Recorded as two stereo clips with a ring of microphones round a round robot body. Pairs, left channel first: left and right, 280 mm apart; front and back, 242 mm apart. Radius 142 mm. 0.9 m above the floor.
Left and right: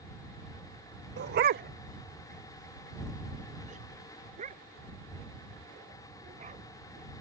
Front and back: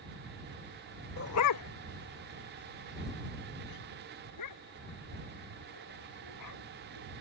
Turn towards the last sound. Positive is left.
turn(degrees=-25)